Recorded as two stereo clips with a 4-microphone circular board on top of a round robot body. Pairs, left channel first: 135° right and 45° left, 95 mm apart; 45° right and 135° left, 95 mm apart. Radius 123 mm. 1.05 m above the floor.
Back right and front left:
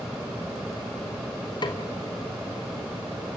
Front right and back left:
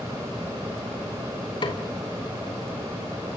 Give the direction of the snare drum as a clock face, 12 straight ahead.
3 o'clock.